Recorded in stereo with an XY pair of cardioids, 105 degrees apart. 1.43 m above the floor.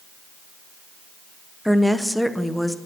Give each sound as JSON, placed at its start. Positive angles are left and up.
{"t": 1.6, "sound": "a woman speaking", "azimuth_deg": 0, "distance_m": 0.6}